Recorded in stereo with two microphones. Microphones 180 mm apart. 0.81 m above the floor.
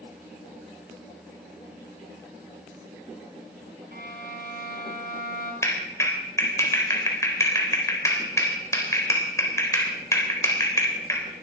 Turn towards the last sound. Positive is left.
turn(degrees=15)  # may be behind; listen again after turning